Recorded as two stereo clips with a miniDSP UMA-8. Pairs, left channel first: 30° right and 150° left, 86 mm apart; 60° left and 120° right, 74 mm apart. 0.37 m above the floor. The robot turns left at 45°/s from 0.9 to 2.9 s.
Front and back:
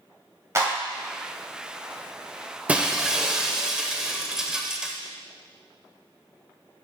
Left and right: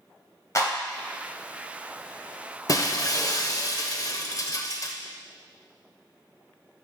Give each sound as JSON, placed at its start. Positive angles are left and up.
{"t": 0.6, "sound": "a clap", "azimuth_deg": 100, "distance_m": 1.8}
{"t": 2.7, "sound": "breaking glass", "azimuth_deg": 80, "distance_m": 0.5}